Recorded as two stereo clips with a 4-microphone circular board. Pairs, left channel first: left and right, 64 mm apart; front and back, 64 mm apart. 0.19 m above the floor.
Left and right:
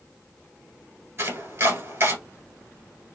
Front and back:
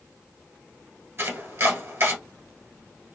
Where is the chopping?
135° right, 1.5 m.